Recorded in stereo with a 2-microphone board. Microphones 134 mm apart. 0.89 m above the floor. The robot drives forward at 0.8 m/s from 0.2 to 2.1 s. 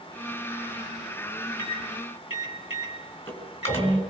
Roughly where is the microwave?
Left.